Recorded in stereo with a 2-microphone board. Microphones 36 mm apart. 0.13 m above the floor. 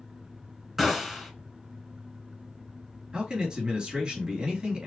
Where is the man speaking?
25° right (ahead or behind), 2.5 m.